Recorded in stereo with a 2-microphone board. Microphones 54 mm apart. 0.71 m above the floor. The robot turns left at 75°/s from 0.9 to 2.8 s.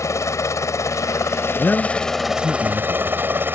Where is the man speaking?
35° left; by 3.2 s 55° right.